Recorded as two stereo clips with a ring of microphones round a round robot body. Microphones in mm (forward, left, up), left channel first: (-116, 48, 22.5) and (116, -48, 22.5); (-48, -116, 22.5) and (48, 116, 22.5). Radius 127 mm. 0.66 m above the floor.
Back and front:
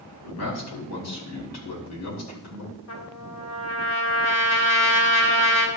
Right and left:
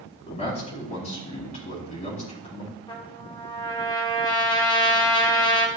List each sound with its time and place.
0.2 s a man speaking: straight behind, 5.5 m
2.9 s a trumpet: 175° left, 1.7 m